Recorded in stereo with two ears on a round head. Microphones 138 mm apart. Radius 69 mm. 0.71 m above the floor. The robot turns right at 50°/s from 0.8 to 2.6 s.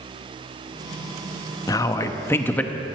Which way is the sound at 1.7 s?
20° left (ahead or behind).